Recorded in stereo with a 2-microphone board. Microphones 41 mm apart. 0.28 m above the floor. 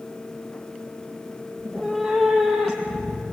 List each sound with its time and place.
1.6 s a cat meowing: 5° left (ahead or behind), 5 m; by 3.3 s 15° right (ahead or behind), 5 m